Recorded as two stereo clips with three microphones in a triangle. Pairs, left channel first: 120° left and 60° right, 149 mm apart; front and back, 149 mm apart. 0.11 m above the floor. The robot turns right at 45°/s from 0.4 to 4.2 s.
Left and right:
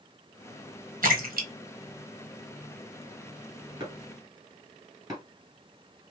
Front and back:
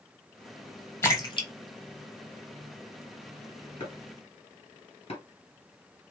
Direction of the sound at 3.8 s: 35° right.